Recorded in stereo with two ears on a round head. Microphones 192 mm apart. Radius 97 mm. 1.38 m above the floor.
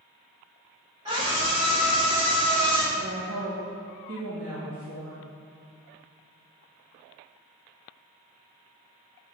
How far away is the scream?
About 2.5 m.